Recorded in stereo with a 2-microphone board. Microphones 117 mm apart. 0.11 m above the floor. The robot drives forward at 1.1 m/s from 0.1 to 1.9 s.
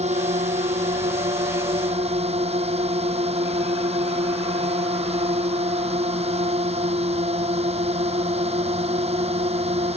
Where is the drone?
70° right (ahead or behind); by 10.0 s 60° right (ahead or behind).